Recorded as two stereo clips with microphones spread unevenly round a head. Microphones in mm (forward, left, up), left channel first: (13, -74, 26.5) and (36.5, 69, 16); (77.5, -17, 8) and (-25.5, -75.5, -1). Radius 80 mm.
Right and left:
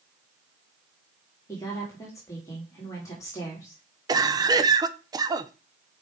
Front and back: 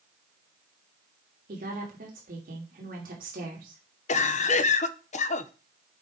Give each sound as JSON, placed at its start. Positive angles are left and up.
{"t": 1.5, "sound": "a woman speaking", "azimuth_deg": -170, "distance_m": 2.5}
{"t": 4.1, "sound": "a cough", "azimuth_deg": 15, "distance_m": 0.8}